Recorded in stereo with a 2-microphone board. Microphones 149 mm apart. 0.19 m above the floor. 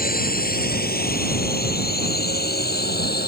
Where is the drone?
65° left (ahead or behind); by 3.3 s 80° left.